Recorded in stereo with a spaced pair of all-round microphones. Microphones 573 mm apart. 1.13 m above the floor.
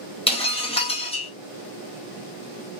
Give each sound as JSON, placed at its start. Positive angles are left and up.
{"t": 0.3, "sound": "breaking glass", "side_deg": 10, "distance_m": 0.6}